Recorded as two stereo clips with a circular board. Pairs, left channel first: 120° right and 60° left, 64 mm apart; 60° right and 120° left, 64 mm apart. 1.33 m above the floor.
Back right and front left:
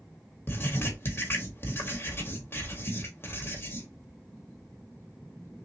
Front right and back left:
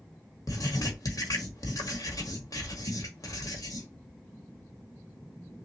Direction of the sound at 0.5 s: 70° right.